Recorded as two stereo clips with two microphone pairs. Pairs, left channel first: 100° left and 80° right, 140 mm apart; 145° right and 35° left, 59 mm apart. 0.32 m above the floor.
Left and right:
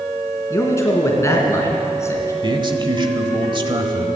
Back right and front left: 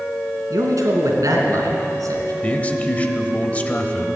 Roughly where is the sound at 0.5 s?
Ahead left.